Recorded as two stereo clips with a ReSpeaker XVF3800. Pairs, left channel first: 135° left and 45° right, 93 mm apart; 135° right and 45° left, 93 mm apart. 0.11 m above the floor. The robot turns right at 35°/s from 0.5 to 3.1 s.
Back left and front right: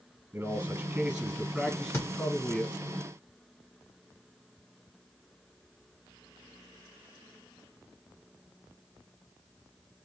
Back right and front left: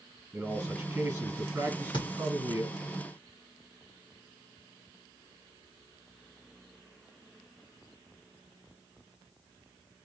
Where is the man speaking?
20° right, 1.8 m; by 2.7 s 55° left, 1.8 m.